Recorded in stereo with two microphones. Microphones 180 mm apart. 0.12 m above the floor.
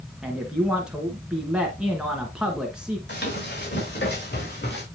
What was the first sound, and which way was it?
A man speaking, 5° right (ahead or behind).